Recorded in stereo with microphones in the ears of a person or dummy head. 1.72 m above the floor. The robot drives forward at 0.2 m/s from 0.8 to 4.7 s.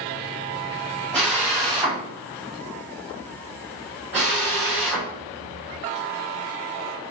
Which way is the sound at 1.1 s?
5° left (ahead or behind).